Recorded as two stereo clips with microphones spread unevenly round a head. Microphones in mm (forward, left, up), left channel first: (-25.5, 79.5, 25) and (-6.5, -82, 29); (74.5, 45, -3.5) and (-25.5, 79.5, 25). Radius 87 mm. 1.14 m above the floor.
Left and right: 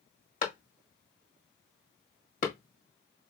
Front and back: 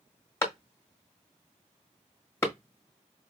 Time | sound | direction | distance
0.4 | a clap | 45° left | 1.5 m